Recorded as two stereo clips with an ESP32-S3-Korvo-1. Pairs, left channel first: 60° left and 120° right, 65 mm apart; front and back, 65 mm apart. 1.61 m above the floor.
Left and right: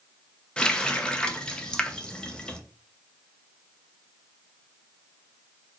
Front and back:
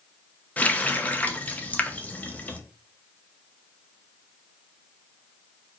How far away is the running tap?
About 0.6 m.